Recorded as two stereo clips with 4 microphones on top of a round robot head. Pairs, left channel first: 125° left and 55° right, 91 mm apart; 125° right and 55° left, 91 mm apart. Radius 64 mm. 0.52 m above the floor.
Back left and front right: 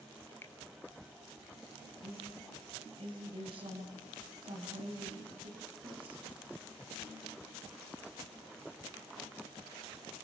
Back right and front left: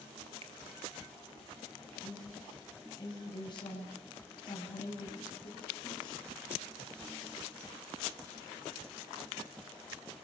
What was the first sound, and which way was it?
A finger snap, 60° left.